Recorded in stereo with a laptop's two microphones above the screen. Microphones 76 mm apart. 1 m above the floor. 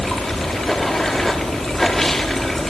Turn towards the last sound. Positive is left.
turn(degrees=5)  # may be behind; listen again after turning